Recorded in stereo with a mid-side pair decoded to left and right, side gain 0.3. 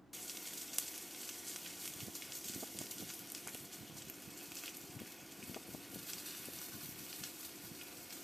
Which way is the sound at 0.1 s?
Straight ahead.